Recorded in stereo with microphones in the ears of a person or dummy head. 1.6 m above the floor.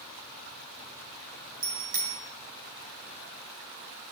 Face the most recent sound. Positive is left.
turn(degrees=-50)  # may be behind; listen again after turning